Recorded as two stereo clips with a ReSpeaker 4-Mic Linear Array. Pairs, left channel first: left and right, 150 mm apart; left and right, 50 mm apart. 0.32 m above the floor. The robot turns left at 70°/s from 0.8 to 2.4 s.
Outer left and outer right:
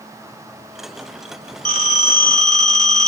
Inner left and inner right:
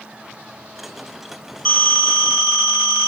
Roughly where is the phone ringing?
Ahead.